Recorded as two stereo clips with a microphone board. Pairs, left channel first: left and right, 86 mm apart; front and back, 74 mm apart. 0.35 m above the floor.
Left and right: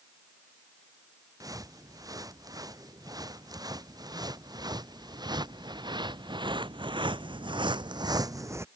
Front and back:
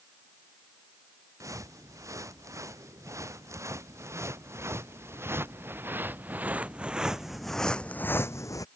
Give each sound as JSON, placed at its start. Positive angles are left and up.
{"t": 1.4, "sound": "footsteps", "azimuth_deg": -135}